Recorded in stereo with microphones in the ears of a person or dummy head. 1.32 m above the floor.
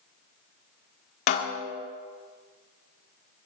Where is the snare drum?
55° left (ahead or behind), 1.4 m.